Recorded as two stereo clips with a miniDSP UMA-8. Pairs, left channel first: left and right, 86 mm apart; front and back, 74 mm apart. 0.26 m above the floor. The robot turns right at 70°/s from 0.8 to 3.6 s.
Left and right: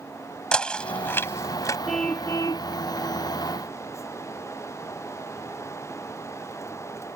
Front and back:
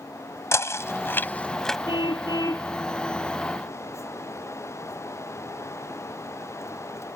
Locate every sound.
0.5 s knocking: 15° left; by 1.8 s 85° left
1.9 s a car horn: straight ahead; by 2.7 s 60° left